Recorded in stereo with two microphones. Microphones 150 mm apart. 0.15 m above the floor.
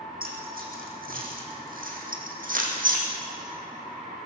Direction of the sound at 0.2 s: 75° right (ahead or behind).